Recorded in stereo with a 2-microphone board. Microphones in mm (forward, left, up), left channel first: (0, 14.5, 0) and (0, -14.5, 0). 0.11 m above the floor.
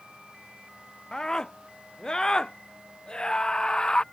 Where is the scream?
25° left (ahead or behind); by 4.0 s 30° left (ahead or behind).